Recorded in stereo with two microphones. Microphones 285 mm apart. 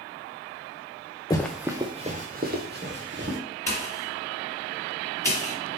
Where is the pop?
10° left (ahead or behind), 1.8 m.